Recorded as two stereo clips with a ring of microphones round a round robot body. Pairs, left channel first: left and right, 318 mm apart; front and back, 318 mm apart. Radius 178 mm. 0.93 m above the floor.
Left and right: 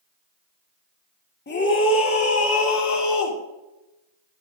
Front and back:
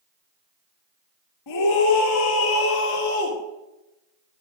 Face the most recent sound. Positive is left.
turn(degrees=60)